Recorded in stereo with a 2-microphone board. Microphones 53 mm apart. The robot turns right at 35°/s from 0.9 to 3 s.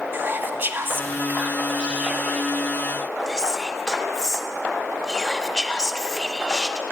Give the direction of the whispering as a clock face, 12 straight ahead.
2 o'clock.